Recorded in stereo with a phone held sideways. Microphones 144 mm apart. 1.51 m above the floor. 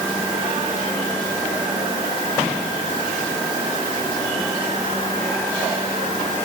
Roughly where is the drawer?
No drawer in this recording.